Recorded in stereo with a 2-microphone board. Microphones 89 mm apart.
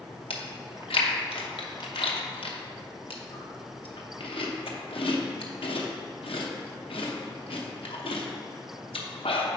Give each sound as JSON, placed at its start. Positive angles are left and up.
{"t": 0.3, "sound": "chewing", "side_deg": 75, "distance_m": 0.8}